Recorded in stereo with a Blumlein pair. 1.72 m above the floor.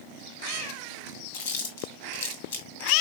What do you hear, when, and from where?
1.3 s chewing: 55° left, 1.3 m